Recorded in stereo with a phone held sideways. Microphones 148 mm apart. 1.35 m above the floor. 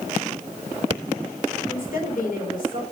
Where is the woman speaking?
70° left (ahead or behind), 4.5 m.